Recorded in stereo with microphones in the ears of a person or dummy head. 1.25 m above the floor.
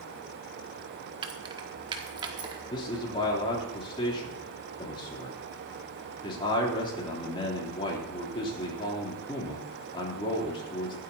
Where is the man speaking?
30° left (ahead or behind), 3.5 m.